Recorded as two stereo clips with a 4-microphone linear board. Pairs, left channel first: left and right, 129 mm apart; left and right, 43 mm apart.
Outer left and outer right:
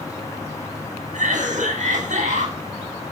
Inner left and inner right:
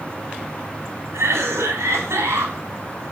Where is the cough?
80° right, 7 m.